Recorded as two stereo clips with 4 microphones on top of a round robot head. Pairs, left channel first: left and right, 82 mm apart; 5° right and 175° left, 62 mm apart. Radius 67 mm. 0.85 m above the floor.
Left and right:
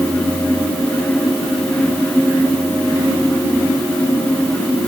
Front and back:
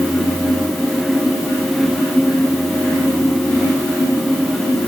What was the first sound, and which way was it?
Only background noise.